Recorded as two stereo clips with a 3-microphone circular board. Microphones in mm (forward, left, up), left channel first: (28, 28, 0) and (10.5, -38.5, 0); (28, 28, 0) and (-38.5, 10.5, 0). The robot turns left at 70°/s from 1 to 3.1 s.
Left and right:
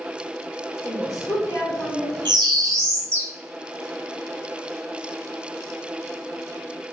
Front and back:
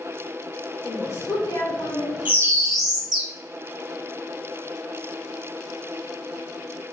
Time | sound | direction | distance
0.8 | a woman speaking | 70° left | 2.0 m
2.2 | a bird | 100° right | 1.0 m